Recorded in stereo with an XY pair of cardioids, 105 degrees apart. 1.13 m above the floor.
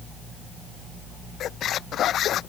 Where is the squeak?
65° left.